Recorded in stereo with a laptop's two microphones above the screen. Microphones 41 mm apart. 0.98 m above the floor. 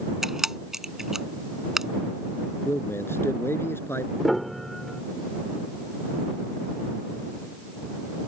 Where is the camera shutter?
10° right (ahead or behind).